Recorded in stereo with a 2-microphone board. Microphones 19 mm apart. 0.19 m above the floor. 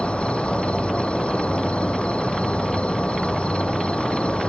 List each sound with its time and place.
0.0 s an insect: 80° left